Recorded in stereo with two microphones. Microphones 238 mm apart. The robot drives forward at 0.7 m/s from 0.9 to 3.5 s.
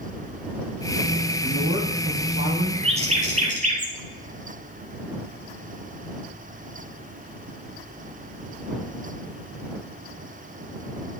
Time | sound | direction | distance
1.4 | a woman speaking | 60° right (ahead or behind) | 2.5 m
2.8 | a bird | 25° right (ahead or behind) | 1.5 m